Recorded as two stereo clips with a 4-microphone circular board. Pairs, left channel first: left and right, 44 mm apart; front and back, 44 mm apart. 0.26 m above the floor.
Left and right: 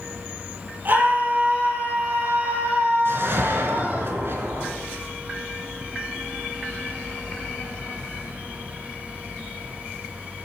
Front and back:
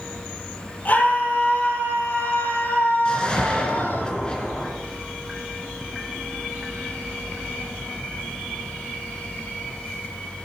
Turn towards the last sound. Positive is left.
turn(degrees=-65)